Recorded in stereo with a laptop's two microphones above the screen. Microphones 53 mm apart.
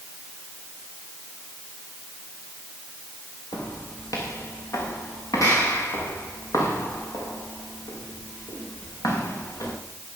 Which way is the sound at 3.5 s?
80° left.